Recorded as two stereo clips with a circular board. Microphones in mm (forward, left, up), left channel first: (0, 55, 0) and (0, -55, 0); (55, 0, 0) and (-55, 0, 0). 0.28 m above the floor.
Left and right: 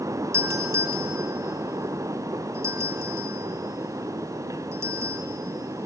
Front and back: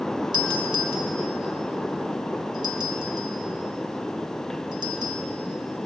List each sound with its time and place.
0.3 s a doorbell: 145° right, 2 m